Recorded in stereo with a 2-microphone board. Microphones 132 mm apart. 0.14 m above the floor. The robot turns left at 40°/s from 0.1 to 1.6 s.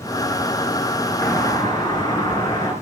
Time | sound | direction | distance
1.2 | a doorbell | 20° left (ahead or behind) | 3 m